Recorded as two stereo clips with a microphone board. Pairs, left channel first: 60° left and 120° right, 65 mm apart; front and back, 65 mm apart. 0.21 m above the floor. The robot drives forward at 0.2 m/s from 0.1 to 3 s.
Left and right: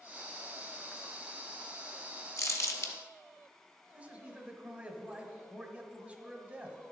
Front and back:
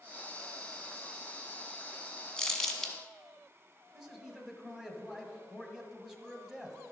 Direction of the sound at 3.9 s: 110° right.